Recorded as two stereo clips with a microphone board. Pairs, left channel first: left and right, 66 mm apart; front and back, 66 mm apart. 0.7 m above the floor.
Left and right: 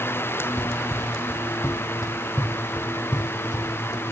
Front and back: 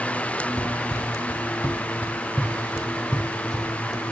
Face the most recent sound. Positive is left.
turn(degrees=85)